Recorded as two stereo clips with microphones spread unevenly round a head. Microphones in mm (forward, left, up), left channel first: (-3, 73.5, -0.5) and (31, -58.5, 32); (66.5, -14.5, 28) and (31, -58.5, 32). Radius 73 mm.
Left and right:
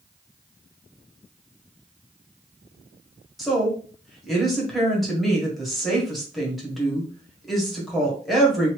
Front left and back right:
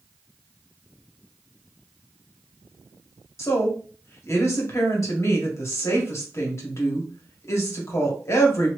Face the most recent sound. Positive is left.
turn(degrees=20)